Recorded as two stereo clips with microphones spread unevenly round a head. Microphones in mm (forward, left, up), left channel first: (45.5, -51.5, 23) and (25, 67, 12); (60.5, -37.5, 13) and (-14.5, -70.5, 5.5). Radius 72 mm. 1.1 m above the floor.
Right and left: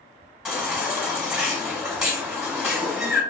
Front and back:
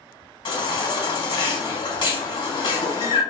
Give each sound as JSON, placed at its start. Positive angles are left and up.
{"t": 0.5, "sound": "a baby crying", "azimuth_deg": 15, "distance_m": 1.4}